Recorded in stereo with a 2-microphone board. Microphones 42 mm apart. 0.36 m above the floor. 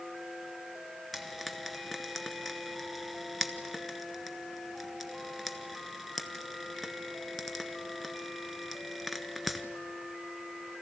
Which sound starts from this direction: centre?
Frying, at 1.1 s.